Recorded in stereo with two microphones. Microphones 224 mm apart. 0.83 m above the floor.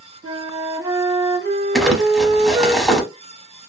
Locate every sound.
0.2 s a flute: 65° right (ahead or behind), 1.0 m
1.8 s crumpling: centre (ahead or behind), 0.8 m